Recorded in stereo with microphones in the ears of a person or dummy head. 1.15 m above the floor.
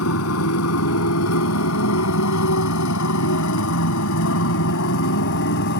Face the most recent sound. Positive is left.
turn(degrees=60)  # may be behind; listen again after turning